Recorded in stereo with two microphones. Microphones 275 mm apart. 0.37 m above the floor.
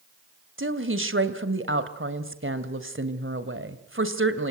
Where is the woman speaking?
45° right (ahead or behind), 2 m.